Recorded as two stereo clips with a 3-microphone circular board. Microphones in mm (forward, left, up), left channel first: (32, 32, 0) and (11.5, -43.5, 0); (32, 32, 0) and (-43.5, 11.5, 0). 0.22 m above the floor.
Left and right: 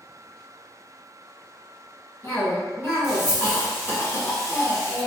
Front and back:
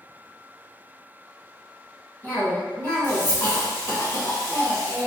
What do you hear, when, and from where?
2.2 s a cough: 45° left, 1.9 m